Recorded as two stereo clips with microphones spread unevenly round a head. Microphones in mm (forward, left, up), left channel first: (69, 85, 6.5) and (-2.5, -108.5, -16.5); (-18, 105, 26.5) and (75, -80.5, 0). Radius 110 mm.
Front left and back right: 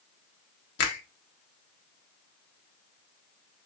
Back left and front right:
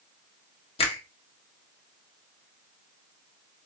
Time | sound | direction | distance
0.8 | a finger snap | 55° left | 0.9 m